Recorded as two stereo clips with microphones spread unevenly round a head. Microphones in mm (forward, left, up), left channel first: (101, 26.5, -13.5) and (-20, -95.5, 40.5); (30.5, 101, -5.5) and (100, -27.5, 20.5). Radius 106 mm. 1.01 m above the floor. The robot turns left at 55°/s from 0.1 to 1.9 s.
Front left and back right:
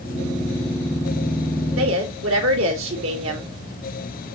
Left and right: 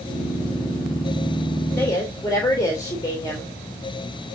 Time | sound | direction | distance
1.8 | a woman speaking | 160° right | 3.5 m